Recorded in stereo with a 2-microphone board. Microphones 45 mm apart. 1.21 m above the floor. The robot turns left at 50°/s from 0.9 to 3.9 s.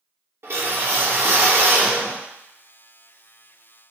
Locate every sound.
0.4 s a whoosh: 60° right, 1.0 m; by 2.2 s 130° right, 1.0 m